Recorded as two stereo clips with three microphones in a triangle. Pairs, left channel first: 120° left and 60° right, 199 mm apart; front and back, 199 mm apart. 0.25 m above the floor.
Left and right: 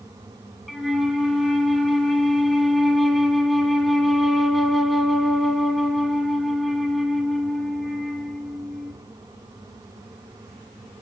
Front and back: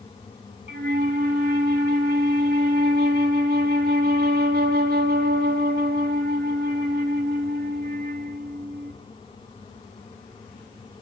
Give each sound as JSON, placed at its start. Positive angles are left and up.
{"t": 0.7, "sound": "a flute", "azimuth_deg": -150, "distance_m": 0.6}